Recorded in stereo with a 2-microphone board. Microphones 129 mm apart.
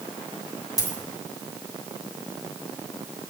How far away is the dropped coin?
About 2 m.